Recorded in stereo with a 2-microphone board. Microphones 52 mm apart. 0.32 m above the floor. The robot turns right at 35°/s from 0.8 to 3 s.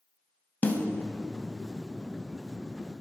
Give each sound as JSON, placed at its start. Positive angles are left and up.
{"t": 0.6, "sound": "a snare drum", "side_deg": 35, "distance_m": 0.6}